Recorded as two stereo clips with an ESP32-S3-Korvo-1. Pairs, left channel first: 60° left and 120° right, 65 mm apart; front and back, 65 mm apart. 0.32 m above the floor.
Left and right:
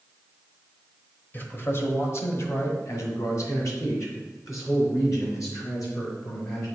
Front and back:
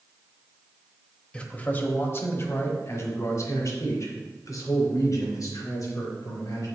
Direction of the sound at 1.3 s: 55° left.